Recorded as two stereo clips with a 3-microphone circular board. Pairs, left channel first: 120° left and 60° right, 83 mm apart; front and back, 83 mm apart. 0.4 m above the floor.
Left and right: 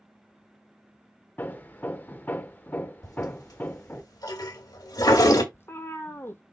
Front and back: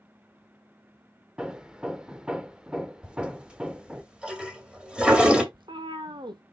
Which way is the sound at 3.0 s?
105° left.